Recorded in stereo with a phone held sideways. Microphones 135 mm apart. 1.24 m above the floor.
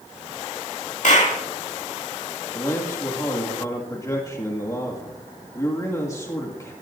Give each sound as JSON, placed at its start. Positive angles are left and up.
{"t": 1.0, "sound": "a clap", "side_deg": 60, "distance_m": 2.5}
{"t": 2.5, "sound": "a man speaking", "side_deg": 25, "distance_m": 2.0}